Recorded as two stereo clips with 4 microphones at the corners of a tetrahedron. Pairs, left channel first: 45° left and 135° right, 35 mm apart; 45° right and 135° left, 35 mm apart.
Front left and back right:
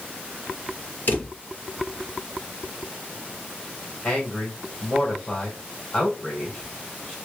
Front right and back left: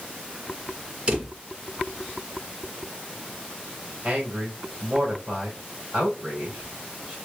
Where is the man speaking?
100° left, 2 m.